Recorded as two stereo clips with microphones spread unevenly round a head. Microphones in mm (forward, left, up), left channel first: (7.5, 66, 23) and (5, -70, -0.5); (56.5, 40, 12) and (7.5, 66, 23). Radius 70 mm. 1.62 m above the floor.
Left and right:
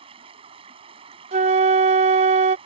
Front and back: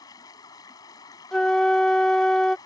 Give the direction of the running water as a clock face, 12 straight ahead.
1 o'clock.